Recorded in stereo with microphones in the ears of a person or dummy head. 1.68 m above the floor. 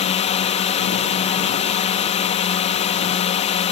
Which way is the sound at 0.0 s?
35° left (ahead or behind).